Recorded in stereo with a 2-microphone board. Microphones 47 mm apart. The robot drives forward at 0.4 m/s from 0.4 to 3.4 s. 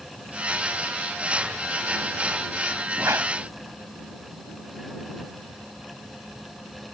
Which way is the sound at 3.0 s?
75° right (ahead or behind).